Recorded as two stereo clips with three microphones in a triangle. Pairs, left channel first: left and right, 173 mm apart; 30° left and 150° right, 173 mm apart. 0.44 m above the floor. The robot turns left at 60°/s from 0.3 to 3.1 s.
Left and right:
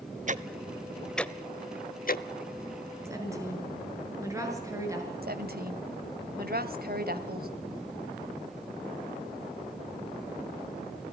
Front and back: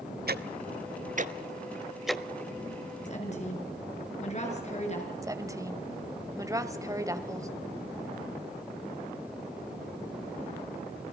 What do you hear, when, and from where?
0.3 s ticking: 130° right, 0.8 m; by 2.2 s 110° left, 0.8 m
3.0 s a woman speaking: 15° right, 6.5 m; by 5.1 s 20° right, 6.5 m
5.2 s a woman speaking: 80° right, 2.0 m